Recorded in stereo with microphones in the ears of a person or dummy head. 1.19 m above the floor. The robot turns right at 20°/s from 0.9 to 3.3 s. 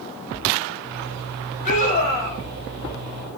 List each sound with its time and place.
1.6 s a scream: 40° left (ahead or behind), 5.5 m; by 2.4 s 25° left (ahead or behind), 5.5 m